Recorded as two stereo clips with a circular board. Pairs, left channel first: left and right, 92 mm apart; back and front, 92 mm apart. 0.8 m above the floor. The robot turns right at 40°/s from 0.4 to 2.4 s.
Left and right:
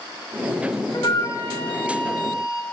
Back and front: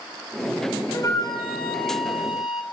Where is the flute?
130° left, 1.4 m; by 2.6 s 175° right, 1.4 m.